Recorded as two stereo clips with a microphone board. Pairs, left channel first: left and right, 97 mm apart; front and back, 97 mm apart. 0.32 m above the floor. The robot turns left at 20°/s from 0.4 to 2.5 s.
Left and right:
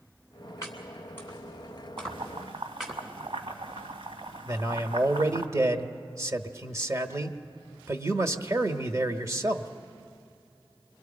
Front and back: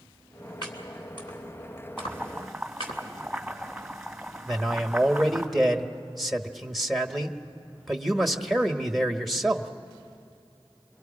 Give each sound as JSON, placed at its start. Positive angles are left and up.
{"t": 0.6, "sound": "chopping", "azimuth_deg": 35, "distance_m": 3.0}
{"t": 2.0, "sound": "boiling", "azimuth_deg": -75, "distance_m": 1.9}
{"t": 4.5, "sound": "a man speaking", "azimuth_deg": -90, "distance_m": 1.0}